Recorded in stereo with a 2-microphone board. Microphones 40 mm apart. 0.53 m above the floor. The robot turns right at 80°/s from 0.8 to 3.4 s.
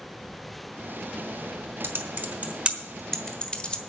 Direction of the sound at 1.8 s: 70° right (ahead or behind).